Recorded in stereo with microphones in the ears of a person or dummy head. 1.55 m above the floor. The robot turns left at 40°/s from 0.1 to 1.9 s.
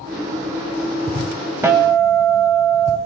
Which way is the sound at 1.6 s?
10° right (ahead or behind).